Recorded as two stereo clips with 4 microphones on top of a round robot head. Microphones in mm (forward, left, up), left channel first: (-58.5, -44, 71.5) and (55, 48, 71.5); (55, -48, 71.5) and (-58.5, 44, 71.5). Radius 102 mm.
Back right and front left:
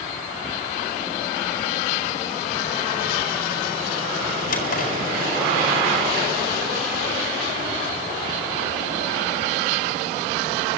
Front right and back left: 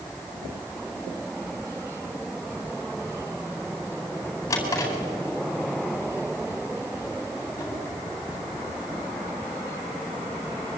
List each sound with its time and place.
4.5 s a drawer: 110° right, 4 m